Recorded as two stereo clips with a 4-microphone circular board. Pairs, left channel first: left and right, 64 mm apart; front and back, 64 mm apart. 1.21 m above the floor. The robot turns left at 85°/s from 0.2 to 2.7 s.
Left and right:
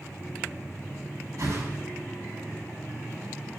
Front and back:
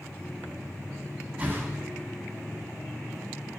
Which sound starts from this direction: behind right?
A whoosh, at 1.4 s.